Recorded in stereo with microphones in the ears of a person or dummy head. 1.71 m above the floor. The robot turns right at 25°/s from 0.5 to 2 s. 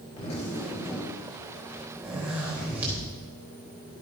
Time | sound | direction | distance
0.2 | a zipper | 150° left | 3.5 m